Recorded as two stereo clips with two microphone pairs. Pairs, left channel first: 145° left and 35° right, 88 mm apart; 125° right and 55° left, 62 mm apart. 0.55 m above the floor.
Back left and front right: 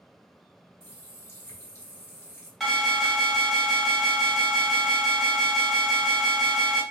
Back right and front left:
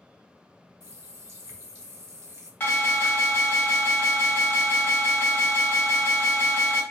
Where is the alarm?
130° right, 1.4 m.